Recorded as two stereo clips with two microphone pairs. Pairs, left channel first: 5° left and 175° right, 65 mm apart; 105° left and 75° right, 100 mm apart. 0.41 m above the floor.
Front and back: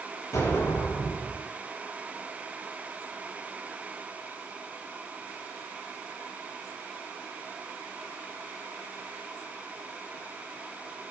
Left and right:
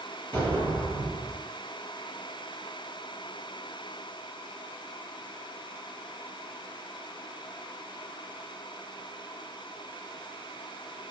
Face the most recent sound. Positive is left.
turn(degrees=35)